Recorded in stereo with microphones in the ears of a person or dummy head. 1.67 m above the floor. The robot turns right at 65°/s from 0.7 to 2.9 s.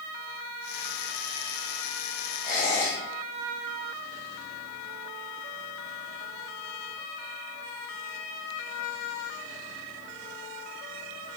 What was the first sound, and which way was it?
A squeak, centre (ahead or behind).